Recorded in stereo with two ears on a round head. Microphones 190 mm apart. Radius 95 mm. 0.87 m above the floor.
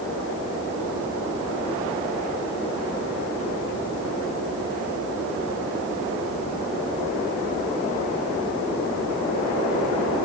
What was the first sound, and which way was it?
Only background noise.